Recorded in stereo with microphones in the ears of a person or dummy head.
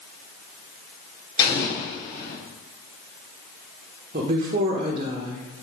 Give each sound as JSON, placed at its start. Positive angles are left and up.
{"t": 1.4, "sound": "an explosion", "side_deg": 25, "distance_m": 3.5}
{"t": 4.1, "sound": "a woman speaking", "side_deg": -40, "distance_m": 1.2}